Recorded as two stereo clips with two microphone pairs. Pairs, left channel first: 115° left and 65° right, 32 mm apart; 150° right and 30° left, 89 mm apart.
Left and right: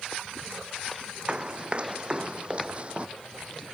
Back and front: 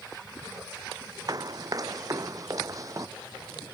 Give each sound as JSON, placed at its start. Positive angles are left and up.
{"t": 1.3, "sound": "running footsteps", "azimuth_deg": -10}